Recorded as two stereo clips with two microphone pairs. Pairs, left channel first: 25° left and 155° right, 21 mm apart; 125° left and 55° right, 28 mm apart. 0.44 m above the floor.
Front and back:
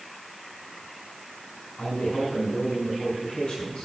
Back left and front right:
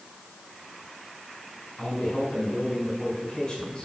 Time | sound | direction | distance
1.8 | a man speaking | 55° left | 4.5 m